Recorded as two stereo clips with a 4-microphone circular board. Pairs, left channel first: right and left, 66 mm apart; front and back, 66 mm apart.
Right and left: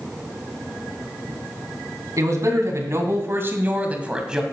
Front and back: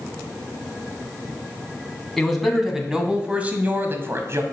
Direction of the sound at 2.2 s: 90° left.